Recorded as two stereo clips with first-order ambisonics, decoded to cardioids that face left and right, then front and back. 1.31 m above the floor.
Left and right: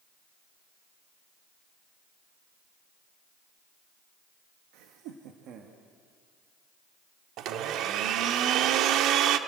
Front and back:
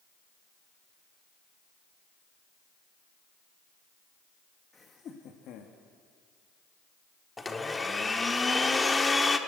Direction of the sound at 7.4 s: 75° right.